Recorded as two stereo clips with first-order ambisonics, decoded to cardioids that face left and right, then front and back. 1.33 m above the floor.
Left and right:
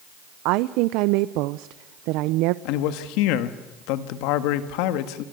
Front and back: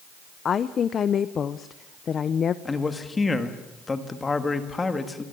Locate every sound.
0.5 s a woman speaking: 65° right, 0.6 m
2.6 s a man speaking: 75° left, 1.6 m